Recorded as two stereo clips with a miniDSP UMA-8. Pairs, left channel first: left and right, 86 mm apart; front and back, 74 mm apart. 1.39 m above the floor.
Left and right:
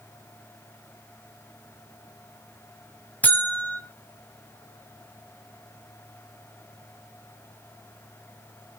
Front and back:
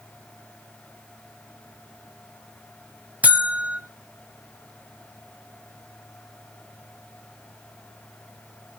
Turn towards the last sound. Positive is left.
turn(degrees=140)